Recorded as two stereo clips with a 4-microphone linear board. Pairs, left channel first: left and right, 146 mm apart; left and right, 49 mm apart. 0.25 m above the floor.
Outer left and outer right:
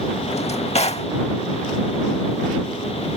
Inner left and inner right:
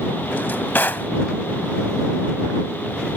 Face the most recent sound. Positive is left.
turn(degrees=45)  # may be behind; listen again after turning